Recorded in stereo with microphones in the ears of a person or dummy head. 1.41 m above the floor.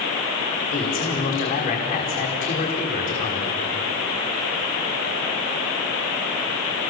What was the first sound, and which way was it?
A man speaking, 40° left (ahead or behind).